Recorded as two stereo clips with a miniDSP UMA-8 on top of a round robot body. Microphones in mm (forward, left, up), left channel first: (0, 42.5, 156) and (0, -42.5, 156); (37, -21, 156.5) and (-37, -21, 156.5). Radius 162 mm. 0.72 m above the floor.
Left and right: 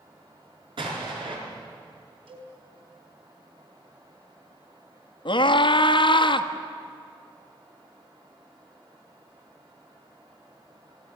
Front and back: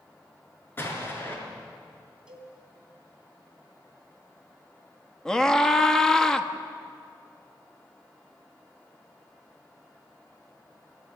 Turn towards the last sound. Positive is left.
turn(degrees=80)